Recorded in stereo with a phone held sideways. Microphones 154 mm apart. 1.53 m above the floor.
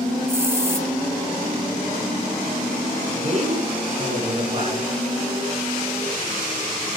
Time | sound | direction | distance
0.3 | a hiss | 15° right (ahead or behind) | 1.1 m
3.1 | a man speaking | 50° right (ahead or behind) | 5.5 m